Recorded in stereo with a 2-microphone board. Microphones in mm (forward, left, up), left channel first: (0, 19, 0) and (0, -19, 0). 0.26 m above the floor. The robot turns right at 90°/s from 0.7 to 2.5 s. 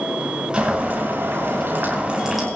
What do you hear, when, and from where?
0.5 s boiling: 160° right, 6.5 m; by 2.5 s straight ahead, 6.5 m